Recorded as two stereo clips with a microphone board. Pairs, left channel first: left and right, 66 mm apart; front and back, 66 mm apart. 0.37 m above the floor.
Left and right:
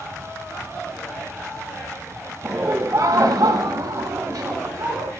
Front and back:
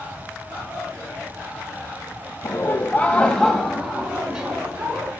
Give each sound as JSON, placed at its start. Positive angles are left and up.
{"t": 2.4, "sound": "laughter", "azimuth_deg": -40, "distance_m": 1.7}